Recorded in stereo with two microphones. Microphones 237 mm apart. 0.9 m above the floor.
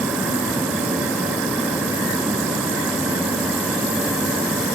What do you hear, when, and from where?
Only background noise.